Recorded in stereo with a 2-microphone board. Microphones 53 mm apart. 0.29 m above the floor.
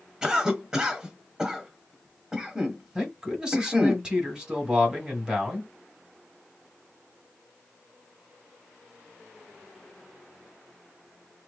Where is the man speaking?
15° right (ahead or behind), 1.8 m.